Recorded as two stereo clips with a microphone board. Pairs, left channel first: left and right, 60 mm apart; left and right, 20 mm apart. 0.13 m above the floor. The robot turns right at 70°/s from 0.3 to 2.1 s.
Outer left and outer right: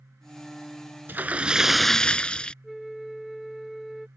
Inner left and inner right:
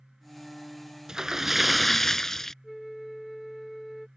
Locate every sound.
1.1 s a splash: 50° right; by 2.5 s 20° left
2.6 s a flute: centre (ahead or behind)